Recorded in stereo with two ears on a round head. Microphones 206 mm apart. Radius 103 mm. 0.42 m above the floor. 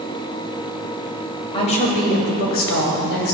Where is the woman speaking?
25° left (ahead or behind), 2.0 m; by 3.4 s 65° left (ahead or behind), 2.5 m.